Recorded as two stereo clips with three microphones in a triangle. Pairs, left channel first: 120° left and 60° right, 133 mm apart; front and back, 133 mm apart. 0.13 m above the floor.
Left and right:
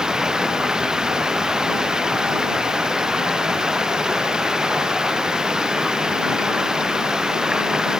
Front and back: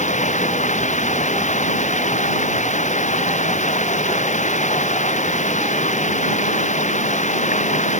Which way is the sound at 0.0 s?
25° left.